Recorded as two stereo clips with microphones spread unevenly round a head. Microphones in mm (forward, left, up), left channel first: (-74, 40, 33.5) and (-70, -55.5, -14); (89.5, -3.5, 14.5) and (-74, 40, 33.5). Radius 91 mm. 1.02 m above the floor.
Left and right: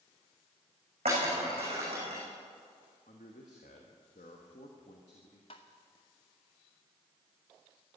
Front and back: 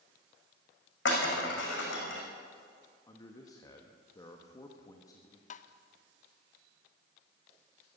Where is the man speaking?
50° left, 1.3 m.